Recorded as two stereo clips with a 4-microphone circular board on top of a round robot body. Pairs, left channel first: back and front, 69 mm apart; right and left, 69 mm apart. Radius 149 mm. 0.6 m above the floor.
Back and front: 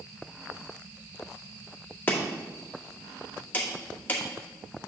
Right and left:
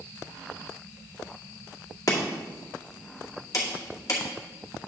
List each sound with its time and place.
2.1 s chopping: 120° right, 2 m